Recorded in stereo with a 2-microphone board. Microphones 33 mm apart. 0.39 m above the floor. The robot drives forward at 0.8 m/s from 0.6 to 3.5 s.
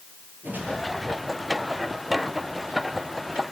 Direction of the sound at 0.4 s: 60° right (ahead or behind).